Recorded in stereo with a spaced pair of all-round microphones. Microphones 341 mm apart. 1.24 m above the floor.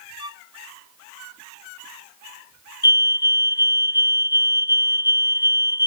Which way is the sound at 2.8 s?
60° left (ahead or behind).